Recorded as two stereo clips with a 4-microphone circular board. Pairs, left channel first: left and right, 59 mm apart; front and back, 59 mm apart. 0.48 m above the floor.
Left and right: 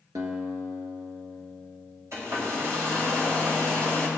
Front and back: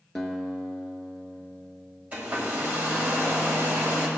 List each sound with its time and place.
0.1 s a guitar: 85° right, 1.3 m
2.1 s a hair dryer: 120° right, 2.0 m